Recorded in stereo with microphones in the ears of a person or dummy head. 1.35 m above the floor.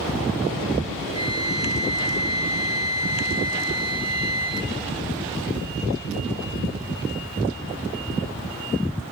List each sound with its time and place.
1.1 s a flute: 25° right (ahead or behind), 2.5 m